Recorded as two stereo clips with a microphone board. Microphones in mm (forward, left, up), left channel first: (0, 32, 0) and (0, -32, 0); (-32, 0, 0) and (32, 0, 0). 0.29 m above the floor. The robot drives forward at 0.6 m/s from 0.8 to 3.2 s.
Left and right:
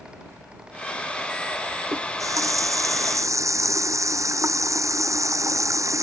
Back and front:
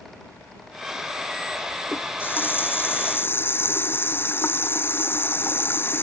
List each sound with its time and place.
1.9 s a running tap: 120° right; by 6.0 s 125° right